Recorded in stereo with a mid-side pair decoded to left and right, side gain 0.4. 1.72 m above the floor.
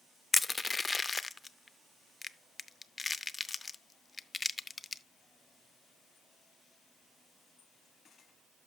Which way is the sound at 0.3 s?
30° left.